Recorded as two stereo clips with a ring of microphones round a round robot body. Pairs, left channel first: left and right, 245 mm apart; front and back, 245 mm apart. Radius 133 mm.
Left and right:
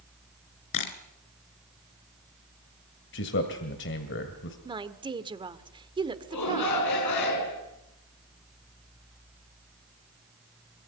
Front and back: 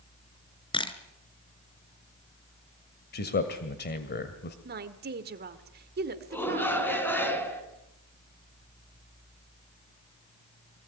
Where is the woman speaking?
155° right, 1.7 m.